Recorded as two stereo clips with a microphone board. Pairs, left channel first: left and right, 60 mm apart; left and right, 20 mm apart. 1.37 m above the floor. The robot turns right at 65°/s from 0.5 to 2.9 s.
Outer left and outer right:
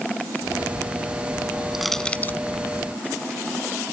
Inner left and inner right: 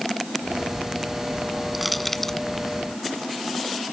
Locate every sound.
1.7 s crushing: 5° right (ahead or behind); by 2.4 s 35° left (ahead or behind)